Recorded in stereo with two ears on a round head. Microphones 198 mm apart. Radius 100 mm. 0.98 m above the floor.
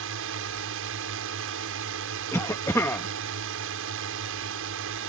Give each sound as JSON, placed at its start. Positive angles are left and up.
{"t": 0.0, "sound": "a drone", "side_deg": -65}
{"t": 2.3, "sound": "a cough", "side_deg": 15}